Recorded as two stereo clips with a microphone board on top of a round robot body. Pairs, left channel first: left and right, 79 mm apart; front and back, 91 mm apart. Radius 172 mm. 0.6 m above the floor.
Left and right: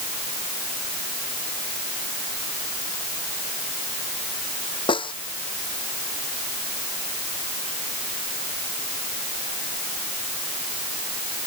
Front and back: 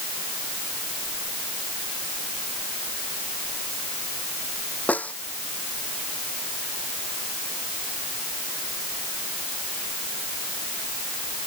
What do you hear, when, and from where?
4.9 s a snare drum: 75° left